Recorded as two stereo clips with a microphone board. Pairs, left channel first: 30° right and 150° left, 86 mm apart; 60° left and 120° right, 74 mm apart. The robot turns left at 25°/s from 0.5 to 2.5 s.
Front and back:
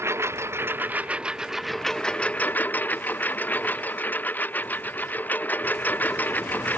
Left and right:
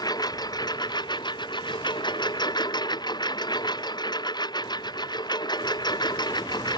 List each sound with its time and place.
0.0 s a lawn mower: 90° left; by 6.8 s 40° left